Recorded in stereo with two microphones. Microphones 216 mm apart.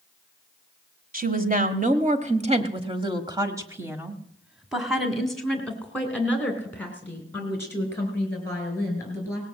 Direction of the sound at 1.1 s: 40° right (ahead or behind).